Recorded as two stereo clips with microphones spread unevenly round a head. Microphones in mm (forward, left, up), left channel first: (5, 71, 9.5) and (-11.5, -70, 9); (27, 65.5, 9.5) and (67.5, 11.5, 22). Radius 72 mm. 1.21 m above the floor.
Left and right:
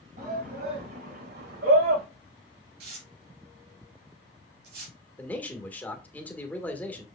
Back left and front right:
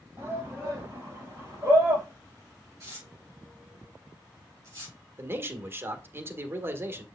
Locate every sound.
0.2 s a shout: 125° right, 4.5 m; by 2.0 s 120° right, 5.5 m
2.8 s tearing paper: 120° right, 3.5 m
5.2 s a man speaking: 5° left, 1.5 m